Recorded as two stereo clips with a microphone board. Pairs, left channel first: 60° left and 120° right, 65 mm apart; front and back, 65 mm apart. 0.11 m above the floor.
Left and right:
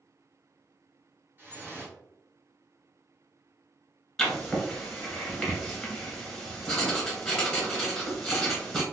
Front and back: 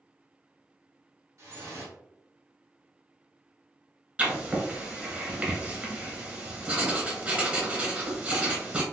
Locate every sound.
1.4 s dripping: 170° right, 1.7 m
4.2 s writing: 135° left, 1.2 m